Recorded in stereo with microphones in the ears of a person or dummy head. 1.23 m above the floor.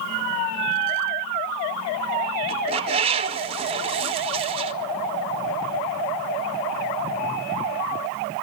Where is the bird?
30° right (ahead or behind), 0.6 m.